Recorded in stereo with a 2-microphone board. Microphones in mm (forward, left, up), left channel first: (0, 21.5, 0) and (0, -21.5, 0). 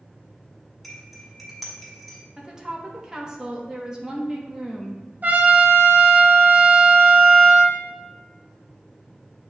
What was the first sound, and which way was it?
Cutlery clinking, centre (ahead or behind).